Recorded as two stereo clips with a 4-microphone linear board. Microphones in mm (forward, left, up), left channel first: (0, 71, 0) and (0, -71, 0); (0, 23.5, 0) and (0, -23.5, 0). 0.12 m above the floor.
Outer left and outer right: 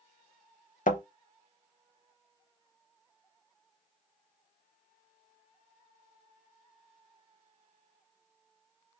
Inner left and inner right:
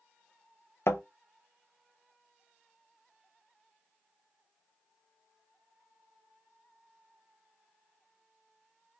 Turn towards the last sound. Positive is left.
turn(degrees=65)  # may be behind; listen again after turning